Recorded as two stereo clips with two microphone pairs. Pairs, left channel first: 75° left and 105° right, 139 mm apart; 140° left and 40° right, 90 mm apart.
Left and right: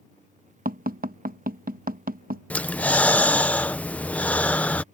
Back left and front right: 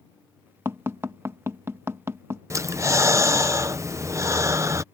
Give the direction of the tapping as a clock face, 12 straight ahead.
3 o'clock.